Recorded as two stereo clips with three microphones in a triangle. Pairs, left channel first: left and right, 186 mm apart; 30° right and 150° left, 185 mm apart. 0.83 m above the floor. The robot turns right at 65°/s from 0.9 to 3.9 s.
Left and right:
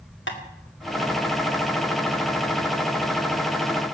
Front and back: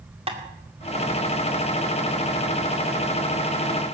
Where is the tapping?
90° left, 2 m.